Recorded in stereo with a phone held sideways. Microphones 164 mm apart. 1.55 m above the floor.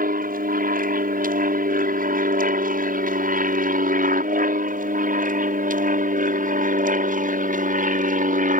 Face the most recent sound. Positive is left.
turn(degrees=-55)  # may be behind; listen again after turning